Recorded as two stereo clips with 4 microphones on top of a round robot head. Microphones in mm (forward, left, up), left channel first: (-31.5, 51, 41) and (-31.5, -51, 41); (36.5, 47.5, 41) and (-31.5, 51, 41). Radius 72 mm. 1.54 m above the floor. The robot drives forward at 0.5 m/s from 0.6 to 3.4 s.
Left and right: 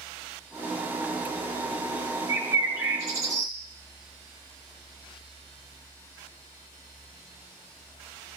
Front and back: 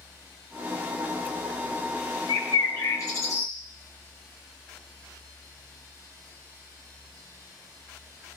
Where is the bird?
20° right, 1.3 m; by 3.5 s 40° right, 1.0 m.